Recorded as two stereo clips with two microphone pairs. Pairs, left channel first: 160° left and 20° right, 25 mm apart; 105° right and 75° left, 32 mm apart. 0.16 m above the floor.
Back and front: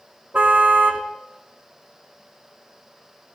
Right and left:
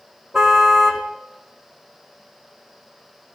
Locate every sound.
0.3 s a car horn: 10° right, 3.5 m